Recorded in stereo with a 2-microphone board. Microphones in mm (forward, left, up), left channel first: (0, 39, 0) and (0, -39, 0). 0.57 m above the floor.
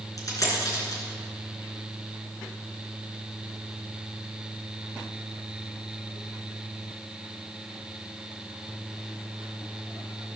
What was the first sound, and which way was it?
A dropped coin, 50° left (ahead or behind).